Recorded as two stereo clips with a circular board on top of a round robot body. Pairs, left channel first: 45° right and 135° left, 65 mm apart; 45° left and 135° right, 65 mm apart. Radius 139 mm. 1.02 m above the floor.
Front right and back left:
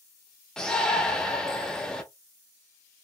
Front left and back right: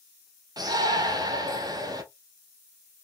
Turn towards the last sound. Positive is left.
turn(degrees=-125)